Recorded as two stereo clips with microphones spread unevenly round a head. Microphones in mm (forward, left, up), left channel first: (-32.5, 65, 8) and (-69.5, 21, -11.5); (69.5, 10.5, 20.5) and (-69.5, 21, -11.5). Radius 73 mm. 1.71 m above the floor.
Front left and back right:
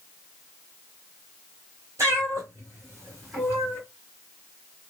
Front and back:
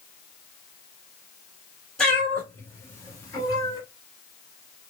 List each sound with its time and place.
2.0 s a cat meowing: 75° right, 2 m; by 3.8 s 45° right, 2.5 m